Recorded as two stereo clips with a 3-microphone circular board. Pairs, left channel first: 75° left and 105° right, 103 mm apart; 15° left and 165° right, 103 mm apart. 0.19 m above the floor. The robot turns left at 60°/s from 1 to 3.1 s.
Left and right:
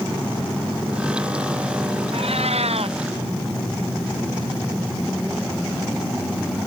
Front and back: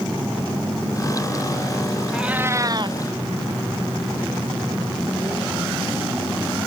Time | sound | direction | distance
2.1 | a cat meowing | 80° right | ?